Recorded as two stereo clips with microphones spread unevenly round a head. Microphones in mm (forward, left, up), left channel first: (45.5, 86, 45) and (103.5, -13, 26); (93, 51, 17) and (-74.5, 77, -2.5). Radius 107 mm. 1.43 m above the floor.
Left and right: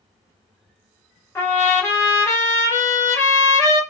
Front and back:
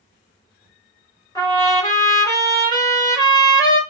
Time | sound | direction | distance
1.4 | a trumpet | 55° left | 2.5 m